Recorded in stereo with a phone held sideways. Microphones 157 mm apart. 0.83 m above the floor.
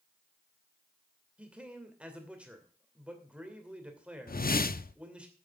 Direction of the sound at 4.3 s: 70° left (ahead or behind).